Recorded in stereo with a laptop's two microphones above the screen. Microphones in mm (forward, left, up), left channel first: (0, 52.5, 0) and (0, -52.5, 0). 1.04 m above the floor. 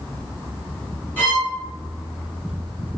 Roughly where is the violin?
Centre.